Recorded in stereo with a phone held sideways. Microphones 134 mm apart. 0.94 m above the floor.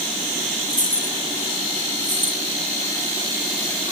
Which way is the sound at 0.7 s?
65° left (ahead or behind).